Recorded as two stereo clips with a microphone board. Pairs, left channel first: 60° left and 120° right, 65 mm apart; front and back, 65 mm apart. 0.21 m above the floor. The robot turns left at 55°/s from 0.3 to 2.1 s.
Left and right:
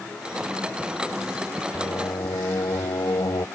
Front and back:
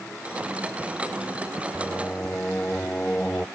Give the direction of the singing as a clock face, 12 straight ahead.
9 o'clock.